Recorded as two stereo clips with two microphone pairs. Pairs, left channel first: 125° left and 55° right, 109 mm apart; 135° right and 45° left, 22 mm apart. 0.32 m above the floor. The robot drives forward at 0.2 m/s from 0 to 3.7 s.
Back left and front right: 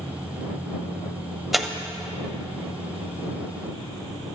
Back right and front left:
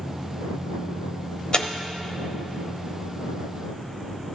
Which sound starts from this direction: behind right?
Tearing paper, at 1.5 s.